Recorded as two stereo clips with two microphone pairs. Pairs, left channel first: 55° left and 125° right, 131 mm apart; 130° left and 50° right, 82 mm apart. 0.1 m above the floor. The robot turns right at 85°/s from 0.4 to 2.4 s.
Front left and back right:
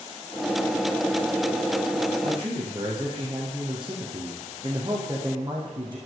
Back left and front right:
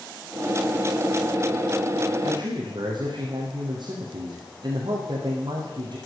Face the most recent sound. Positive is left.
turn(degrees=-65)